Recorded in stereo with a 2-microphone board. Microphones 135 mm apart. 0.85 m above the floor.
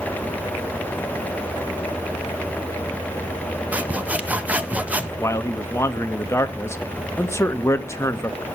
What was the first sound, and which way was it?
Sawing, 10° right (ahead or behind).